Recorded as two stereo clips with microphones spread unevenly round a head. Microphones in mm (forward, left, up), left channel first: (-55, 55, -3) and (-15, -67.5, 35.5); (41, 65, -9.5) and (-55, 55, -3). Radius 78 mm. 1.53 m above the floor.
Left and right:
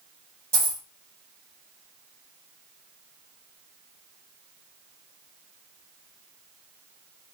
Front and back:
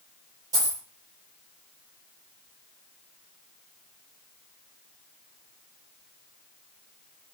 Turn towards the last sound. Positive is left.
turn(degrees=-125)